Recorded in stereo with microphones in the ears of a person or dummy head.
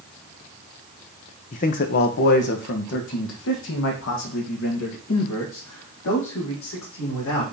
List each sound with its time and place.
1.5 s a man speaking: 35° left (ahead or behind), 0.7 m; by 7.4 s 70° left (ahead or behind), 3.5 m